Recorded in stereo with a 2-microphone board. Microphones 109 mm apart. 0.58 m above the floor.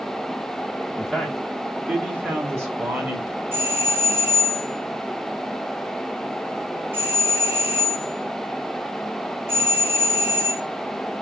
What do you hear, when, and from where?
1.0 s a man speaking: 10° left (ahead or behind), 0.9 m; by 3.4 s 30° right (ahead or behind), 2 m
3.5 s a doorbell: 20° right (ahead or behind), 1.5 m